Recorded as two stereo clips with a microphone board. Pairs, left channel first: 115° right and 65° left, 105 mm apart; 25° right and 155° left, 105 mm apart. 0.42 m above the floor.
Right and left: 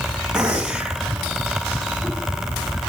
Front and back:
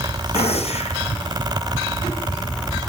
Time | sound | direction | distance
0.3 | a gunshot | 15° right | 1.5 m